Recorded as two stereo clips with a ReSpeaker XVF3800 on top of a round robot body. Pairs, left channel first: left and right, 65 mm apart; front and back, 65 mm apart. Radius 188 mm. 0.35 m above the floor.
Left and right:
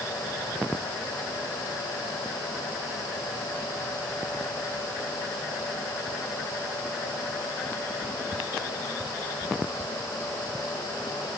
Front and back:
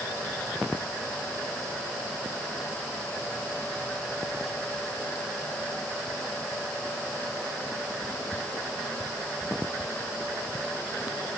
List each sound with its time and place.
Only background noise.